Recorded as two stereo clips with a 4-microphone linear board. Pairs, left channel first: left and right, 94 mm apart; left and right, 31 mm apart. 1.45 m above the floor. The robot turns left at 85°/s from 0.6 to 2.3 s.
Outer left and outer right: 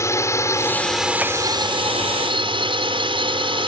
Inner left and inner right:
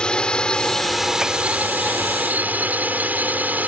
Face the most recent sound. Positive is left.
turn(degrees=-115)